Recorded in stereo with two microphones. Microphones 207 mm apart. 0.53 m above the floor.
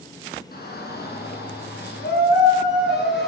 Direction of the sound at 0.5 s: 50° left (ahead or behind).